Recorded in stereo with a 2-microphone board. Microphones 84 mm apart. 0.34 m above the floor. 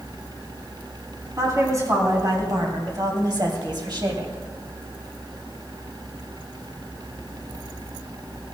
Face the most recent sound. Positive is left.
turn(degrees=-50)  # may be behind; listen again after turning